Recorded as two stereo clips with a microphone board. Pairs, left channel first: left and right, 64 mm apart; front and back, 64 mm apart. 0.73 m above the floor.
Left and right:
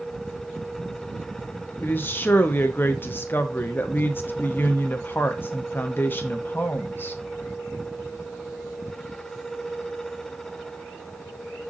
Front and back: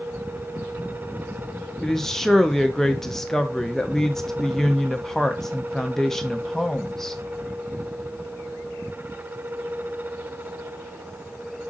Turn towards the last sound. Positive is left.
turn(degrees=80)